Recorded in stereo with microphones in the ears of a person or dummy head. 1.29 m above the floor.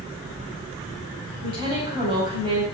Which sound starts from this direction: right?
A woman speaking, at 1.4 s.